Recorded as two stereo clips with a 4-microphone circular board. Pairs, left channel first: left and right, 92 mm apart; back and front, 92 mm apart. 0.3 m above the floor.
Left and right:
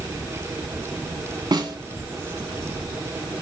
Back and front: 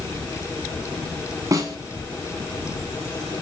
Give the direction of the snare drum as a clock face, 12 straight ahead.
2 o'clock.